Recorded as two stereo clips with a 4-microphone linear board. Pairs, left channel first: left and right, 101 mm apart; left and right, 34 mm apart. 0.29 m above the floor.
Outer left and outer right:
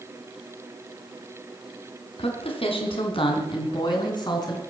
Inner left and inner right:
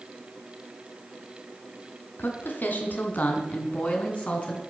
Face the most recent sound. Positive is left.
turn(degrees=40)  # may be behind; listen again after turning